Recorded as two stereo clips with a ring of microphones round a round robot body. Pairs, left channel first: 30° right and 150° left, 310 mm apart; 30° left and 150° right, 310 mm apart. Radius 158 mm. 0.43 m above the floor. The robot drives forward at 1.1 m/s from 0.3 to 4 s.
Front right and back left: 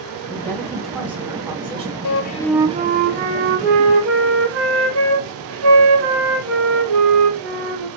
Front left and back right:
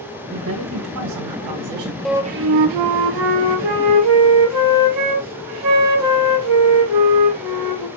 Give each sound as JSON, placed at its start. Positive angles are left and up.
{"t": 0.3, "sound": "a woman speaking", "azimuth_deg": -105, "distance_m": 2.5}
{"t": 2.0, "sound": "a flute", "azimuth_deg": -55, "distance_m": 0.6}